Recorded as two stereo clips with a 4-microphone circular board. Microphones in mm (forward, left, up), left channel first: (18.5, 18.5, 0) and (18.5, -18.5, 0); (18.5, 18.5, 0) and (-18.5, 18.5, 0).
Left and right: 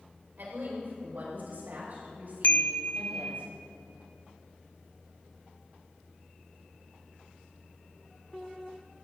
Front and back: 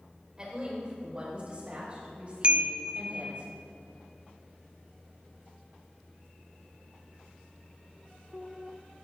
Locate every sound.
0.4 s a woman speaking: 115° right, 5.5 m; by 3.4 s 125° right, 8.5 m
2.4 s a chime: 125° left, 0.8 m